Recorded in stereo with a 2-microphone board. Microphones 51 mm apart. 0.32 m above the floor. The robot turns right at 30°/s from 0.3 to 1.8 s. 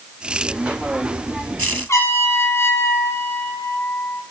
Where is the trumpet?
60° left (ahead or behind), 7.5 m.